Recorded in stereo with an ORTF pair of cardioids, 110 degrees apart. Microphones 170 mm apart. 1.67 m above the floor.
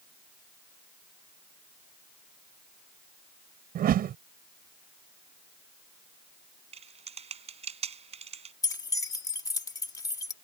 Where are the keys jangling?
20° left.